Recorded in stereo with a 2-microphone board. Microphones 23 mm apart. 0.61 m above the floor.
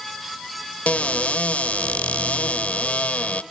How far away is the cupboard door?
About 0.9 m.